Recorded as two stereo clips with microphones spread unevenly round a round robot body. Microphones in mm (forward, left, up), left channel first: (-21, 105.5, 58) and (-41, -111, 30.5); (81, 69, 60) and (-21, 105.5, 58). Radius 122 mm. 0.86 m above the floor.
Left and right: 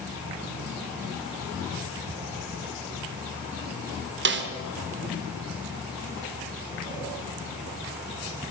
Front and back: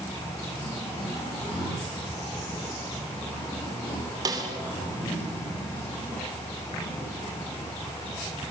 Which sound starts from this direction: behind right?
A snare drum, at 4.2 s.